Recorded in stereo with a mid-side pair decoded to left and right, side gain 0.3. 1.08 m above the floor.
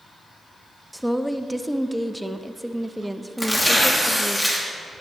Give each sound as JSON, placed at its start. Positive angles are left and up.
{"t": 0.9, "sound": "a woman speaking", "azimuth_deg": -5, "distance_m": 0.7}
{"t": 3.4, "sound": "tearing paper", "azimuth_deg": 10, "distance_m": 2.5}